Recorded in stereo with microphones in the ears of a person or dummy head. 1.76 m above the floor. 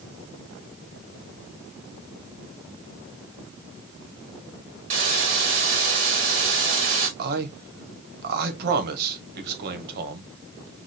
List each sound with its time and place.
4.9 s a hiss: 40° right (ahead or behind), 1.4 m
7.2 s a man speaking: 55° right (ahead or behind), 1.3 m